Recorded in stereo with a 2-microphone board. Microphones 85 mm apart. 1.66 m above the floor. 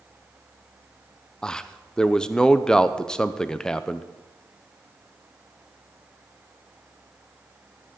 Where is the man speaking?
10° left (ahead or behind), 0.7 m.